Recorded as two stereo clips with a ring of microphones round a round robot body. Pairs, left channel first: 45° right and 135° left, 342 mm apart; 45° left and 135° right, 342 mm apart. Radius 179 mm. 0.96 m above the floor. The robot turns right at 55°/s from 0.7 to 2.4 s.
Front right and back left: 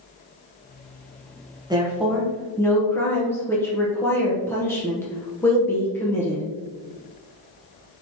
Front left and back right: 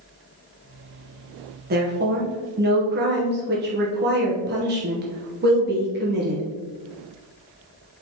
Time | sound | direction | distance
1.7 | a woman speaking | 160° right | 0.9 m